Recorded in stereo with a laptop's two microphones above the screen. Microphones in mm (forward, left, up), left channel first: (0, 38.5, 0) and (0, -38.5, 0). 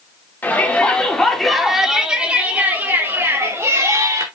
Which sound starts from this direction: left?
A shout, at 0.4 s.